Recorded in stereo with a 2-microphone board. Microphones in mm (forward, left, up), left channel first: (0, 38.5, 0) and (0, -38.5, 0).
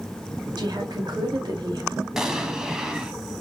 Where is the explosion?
5° right (ahead or behind), 0.8 m.